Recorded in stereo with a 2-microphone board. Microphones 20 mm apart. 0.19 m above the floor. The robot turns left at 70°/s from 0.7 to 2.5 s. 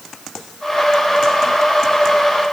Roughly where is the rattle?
I don't hear a rattle.